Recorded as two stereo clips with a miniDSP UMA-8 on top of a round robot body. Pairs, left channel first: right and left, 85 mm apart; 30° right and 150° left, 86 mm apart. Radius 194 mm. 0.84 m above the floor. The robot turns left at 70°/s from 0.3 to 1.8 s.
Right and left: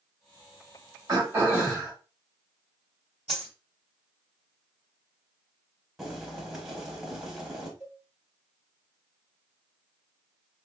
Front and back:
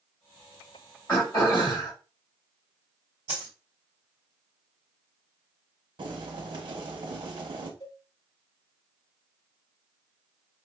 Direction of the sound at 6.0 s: 175° left.